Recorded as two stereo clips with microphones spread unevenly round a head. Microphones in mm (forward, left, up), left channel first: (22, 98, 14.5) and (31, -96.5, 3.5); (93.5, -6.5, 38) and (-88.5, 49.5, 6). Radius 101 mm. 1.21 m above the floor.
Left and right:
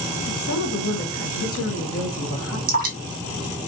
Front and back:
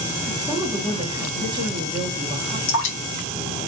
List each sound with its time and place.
0.3 s a woman speaking: 100° left, 1.5 m
2.7 s dripping: 40° right, 1.4 m